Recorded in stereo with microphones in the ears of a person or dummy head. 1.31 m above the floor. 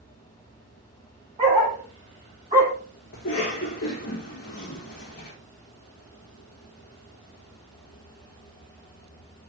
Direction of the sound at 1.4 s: 35° right (ahead or behind).